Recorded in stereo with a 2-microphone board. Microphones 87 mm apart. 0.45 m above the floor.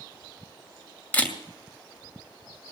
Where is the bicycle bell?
No bicycle bell in this recording.